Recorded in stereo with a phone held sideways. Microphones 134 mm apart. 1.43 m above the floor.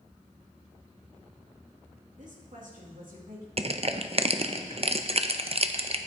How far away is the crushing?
About 0.5 m.